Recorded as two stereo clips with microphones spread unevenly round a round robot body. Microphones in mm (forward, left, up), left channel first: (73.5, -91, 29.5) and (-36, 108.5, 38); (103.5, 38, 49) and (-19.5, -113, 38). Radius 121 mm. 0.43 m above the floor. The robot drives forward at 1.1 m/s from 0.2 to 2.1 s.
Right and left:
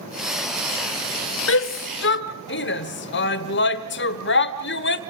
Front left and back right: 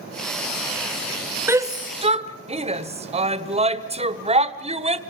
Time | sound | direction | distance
1.5 | a shout | 55° right | 1.8 m